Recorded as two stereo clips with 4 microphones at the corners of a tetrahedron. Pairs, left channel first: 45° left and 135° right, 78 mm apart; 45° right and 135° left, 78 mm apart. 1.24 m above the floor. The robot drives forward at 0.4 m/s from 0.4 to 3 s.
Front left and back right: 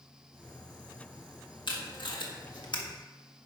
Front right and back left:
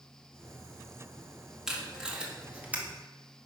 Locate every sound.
1.7 s tape being pulled: 50° left, 1.7 m; by 2.8 s 65° left, 1.5 m